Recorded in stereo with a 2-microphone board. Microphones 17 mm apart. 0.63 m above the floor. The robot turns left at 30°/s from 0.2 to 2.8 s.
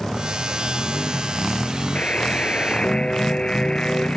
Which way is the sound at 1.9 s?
80° left.